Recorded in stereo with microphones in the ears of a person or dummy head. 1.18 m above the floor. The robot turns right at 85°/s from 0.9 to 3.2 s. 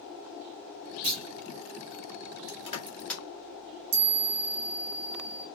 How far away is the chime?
About 1.0 m.